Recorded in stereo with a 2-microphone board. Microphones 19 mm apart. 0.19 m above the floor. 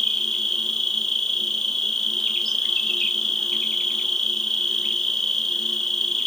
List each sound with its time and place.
0.0 s an insect: 35° left (ahead or behind), 1.6 m